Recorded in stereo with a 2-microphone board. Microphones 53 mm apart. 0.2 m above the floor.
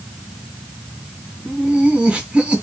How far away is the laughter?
About 1.7 m.